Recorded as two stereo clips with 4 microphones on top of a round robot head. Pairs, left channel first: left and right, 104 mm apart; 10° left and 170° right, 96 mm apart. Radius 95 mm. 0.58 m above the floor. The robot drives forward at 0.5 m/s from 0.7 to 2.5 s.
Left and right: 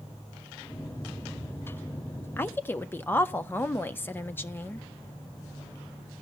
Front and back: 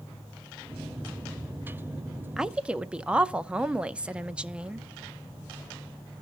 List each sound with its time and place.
2.4 s a woman speaking: 115° left, 0.6 m; by 4.9 s 130° left, 0.6 m